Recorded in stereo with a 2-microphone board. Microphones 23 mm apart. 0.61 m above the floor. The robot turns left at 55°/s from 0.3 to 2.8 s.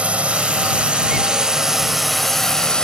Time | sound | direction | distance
0.0 | a drone | 80° right | ?